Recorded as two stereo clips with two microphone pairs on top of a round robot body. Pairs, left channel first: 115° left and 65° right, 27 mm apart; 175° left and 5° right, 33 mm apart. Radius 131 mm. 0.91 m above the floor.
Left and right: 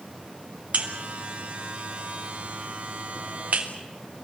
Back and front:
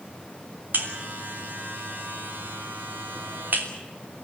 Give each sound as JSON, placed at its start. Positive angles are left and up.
{"t": 0.7, "sound": "a buzzer", "azimuth_deg": -35, "distance_m": 3.0}